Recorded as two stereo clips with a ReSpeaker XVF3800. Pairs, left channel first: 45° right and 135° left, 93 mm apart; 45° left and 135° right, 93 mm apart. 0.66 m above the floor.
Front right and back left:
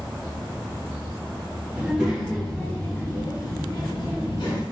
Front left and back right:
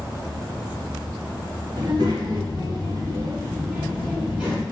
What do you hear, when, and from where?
1.8 s a child speaking: 150° right, 1.0 m; by 4.6 s 55° right, 1.4 m